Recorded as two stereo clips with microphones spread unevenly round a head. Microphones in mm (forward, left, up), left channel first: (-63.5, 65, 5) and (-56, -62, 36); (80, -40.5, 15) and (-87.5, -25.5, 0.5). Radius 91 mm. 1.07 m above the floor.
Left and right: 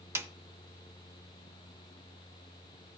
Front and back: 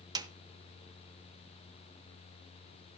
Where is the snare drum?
125° right, 0.9 m.